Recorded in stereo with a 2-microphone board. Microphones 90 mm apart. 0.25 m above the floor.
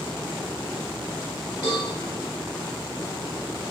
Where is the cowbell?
40° left (ahead or behind), 1.9 m.